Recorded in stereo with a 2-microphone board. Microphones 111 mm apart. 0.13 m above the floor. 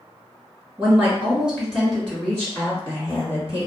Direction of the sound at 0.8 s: 20° right (ahead or behind).